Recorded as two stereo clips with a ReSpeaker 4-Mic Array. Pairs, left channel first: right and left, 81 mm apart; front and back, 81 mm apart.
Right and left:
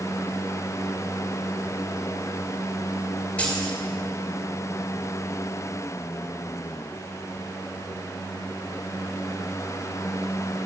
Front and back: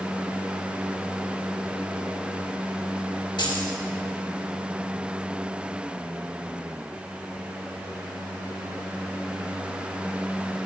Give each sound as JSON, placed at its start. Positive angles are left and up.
{"t": 3.4, "sound": "keys jangling", "azimuth_deg": -15, "distance_m": 2.5}